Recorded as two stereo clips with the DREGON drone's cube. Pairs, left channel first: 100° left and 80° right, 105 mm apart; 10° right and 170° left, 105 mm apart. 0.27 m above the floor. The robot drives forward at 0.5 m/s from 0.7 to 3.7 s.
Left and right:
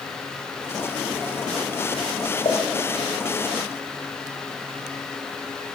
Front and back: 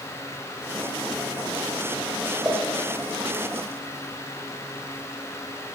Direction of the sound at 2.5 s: 105° left.